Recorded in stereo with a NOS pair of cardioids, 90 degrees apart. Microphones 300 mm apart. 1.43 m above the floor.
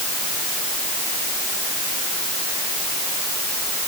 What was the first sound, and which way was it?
Only background noise.